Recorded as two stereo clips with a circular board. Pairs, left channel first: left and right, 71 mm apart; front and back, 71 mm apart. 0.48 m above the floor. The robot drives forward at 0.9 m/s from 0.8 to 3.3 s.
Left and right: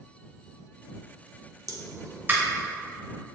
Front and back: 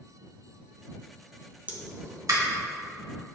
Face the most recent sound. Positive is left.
turn(degrees=-165)